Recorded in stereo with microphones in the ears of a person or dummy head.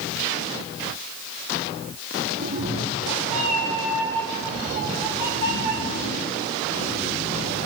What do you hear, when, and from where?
2.4 s a cat meowing: 50° right (ahead or behind), 1.4 m; by 7.7 s 30° left (ahead or behind), 6 m